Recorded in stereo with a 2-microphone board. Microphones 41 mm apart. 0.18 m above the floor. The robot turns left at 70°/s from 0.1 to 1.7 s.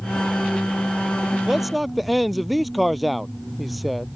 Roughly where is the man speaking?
Centre.